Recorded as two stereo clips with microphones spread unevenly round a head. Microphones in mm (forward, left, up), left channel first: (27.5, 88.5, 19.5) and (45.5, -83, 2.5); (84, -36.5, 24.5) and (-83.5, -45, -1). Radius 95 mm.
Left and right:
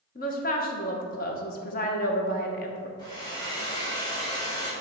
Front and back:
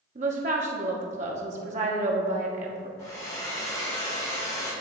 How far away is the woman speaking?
About 0.9 m.